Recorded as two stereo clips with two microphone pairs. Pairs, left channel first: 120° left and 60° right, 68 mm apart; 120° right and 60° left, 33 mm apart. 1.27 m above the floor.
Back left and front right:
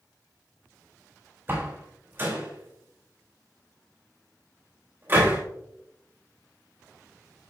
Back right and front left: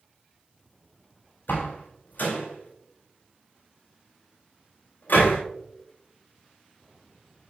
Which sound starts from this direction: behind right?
A door slam, at 1.5 s.